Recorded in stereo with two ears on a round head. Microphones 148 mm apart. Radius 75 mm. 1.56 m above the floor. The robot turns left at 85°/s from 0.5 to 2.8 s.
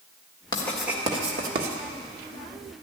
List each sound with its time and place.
0.5 s writing: 25° left (ahead or behind), 1.6 m; by 1.8 s 70° right (ahead or behind), 1.6 m